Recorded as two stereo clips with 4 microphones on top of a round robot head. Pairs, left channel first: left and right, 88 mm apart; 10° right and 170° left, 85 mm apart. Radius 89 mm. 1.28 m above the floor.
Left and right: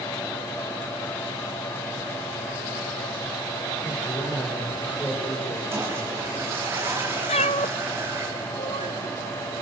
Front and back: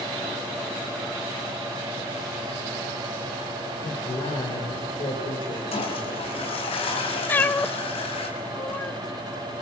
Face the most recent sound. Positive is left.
turn(degrees=55)